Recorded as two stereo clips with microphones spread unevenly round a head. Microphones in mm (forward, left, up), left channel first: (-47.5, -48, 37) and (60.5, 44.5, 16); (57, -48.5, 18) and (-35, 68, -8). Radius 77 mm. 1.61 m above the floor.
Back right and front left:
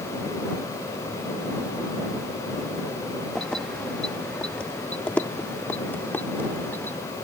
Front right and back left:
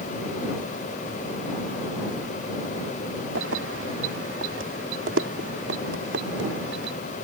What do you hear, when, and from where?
3.4 s keys jangling: 135° left; by 7.0 s 145° left